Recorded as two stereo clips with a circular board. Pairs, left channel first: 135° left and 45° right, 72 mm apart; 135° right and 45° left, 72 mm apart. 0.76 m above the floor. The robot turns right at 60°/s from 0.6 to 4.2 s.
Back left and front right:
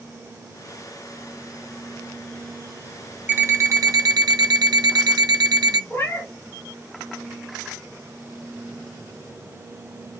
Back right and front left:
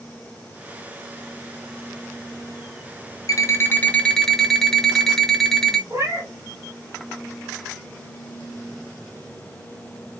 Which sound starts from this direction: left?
A cat meowing, at 5.9 s.